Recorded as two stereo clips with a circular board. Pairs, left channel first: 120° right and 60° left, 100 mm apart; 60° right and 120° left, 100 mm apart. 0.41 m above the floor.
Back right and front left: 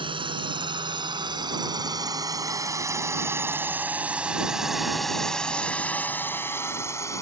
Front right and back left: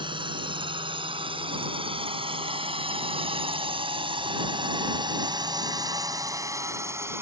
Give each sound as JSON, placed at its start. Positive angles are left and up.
{"t": 0.0, "sound": "a drone", "azimuth_deg": 90}